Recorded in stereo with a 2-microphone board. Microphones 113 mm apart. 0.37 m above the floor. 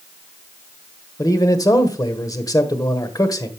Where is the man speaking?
30° left (ahead or behind), 1.3 m.